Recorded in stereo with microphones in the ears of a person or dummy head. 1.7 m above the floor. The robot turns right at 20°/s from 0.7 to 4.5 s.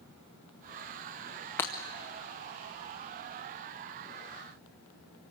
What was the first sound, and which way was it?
Breaking glass, 10° left (ahead or behind).